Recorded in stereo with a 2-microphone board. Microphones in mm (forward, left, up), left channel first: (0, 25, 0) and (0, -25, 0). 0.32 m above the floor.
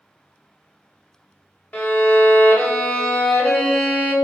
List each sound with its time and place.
1.7 s a violin: 25° left (ahead or behind), 1.0 m